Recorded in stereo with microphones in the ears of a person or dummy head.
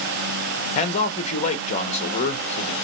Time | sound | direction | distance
0.8 | a man speaking | 35° left (ahead or behind) | 0.8 m